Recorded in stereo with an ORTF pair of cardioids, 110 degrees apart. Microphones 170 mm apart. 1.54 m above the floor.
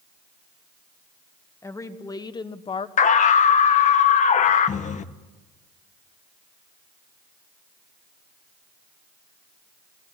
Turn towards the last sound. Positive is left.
turn(degrees=45)